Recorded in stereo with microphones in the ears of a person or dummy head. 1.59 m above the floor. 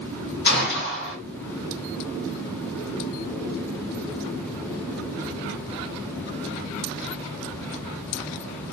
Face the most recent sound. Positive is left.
turn(degrees=55)  # may be behind; listen again after turning